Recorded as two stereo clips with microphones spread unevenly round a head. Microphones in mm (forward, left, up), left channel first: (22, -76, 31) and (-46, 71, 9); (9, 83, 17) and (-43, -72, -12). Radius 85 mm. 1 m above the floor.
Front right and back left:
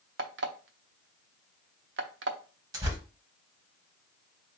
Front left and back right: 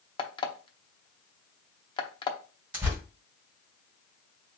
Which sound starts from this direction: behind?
Tearing paper, at 2.7 s.